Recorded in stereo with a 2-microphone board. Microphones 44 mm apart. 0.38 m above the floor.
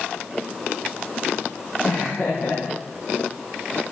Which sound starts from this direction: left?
Laughter, at 1.8 s.